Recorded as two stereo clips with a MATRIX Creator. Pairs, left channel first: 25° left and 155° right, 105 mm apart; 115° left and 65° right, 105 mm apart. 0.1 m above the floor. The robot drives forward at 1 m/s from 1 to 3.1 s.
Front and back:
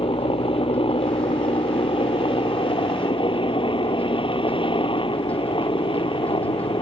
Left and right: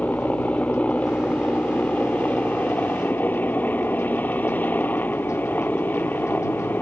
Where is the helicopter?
35° left; by 6.8 s 40° left.